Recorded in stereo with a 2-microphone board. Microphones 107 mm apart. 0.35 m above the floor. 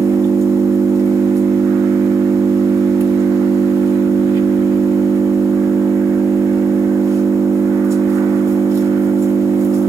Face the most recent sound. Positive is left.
turn(degrees=-30)  # may be behind; listen again after turning